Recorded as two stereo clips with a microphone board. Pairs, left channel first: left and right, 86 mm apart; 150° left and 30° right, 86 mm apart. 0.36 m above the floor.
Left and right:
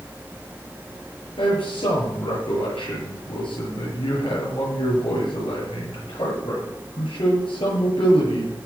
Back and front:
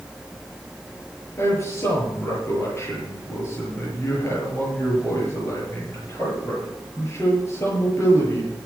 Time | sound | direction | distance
1.4 | a man speaking | 90° left | 7.5 m